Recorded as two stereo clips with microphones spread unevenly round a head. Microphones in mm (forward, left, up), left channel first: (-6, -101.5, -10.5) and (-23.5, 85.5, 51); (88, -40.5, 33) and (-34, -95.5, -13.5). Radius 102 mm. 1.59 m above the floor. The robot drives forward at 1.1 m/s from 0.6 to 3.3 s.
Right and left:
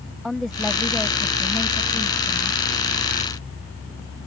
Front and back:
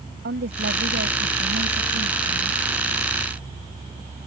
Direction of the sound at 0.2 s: 175° right.